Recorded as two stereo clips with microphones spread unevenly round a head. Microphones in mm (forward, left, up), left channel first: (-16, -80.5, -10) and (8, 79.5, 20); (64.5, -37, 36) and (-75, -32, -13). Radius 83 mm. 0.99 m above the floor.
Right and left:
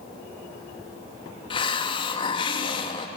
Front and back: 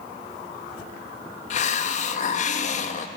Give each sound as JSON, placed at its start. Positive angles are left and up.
{"t": 1.5, "sound": "a hiss", "azimuth_deg": -35, "distance_m": 0.6}